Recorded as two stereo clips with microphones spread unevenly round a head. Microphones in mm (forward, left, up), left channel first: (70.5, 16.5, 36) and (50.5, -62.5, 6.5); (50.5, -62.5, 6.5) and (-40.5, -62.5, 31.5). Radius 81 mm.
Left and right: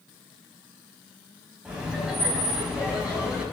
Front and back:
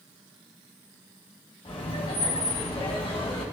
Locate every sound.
1.6 s laughter: 25° right, 6 m